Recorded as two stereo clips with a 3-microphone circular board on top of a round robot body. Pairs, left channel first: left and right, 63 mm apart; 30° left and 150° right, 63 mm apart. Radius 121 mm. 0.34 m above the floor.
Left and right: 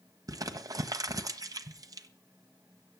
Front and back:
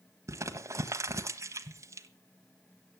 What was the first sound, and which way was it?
Crumpling, 110° right.